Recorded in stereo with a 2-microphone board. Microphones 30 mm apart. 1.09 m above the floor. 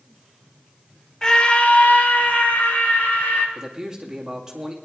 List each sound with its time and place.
1.2 s a scream: 15° left (ahead or behind), 0.8 m; by 3.5 s 75° left (ahead or behind), 3 m
3.5 s a man speaking: 20° right (ahead or behind), 2 m